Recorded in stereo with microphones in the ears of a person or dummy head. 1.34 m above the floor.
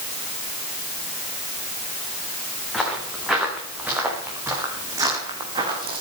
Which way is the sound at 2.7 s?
Centre (ahead or behind).